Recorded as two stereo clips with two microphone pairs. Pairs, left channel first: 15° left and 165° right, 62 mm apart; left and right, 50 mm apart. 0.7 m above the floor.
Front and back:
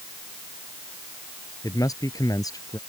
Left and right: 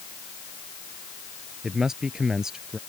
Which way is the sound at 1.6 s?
10° right.